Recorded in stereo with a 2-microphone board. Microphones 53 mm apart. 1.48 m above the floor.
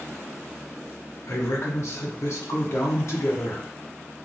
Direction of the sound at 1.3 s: 60° left (ahead or behind).